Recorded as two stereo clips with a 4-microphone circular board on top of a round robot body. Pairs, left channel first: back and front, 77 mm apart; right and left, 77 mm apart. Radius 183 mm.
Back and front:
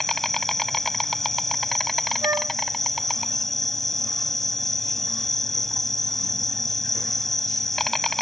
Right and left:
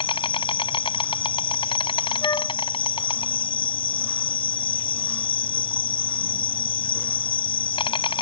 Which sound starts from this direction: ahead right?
A flute, at 2.2 s.